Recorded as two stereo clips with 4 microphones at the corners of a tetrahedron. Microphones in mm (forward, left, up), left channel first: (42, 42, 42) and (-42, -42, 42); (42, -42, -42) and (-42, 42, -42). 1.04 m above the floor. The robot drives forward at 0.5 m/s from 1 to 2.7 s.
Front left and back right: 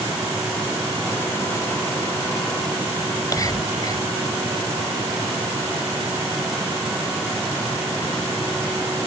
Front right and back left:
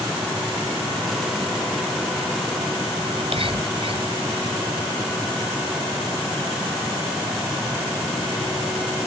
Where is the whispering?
100° left.